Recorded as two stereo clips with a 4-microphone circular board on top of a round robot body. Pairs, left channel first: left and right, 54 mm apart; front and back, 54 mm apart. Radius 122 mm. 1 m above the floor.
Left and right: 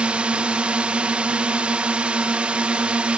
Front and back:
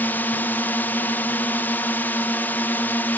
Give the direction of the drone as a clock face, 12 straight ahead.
1 o'clock.